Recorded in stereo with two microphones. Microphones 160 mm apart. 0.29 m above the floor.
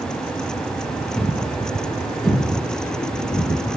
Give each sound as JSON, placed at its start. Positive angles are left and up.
{"t": 1.1, "sound": "a thud", "side_deg": 0, "distance_m": 2.0}